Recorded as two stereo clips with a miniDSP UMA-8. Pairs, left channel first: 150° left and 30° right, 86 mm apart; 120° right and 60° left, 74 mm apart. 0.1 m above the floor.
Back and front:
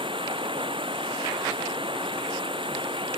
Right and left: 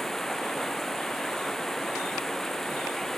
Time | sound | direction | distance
0.0 | running water | 35° right | ?